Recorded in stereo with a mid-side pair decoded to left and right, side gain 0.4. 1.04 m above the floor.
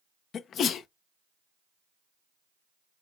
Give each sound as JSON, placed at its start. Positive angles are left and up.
{"t": 0.3, "sound": "a sneeze", "azimuth_deg": 70, "distance_m": 0.5}